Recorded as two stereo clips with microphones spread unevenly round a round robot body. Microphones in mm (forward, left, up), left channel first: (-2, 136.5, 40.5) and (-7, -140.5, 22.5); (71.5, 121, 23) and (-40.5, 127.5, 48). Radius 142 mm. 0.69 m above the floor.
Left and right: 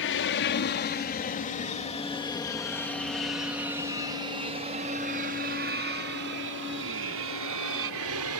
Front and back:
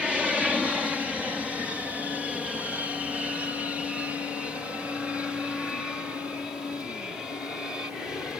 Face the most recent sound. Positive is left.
turn(degrees=-90)